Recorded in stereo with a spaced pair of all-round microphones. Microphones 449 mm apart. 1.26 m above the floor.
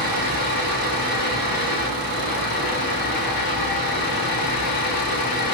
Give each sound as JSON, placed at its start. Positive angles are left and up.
{"t": 0.0, "sound": "a fan", "side_deg": 50, "distance_m": 1.0}